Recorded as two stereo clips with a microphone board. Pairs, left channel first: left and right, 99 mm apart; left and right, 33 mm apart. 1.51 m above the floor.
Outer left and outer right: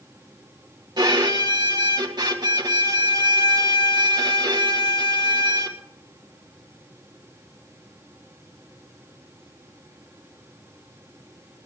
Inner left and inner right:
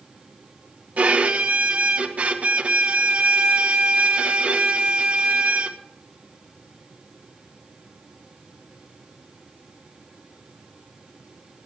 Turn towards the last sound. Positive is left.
turn(degrees=-45)  # may be behind; listen again after turning